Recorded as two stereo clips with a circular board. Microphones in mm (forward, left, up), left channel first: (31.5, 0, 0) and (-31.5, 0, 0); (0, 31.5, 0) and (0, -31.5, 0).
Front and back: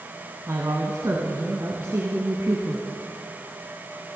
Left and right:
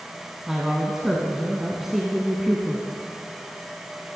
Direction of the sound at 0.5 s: 175° right.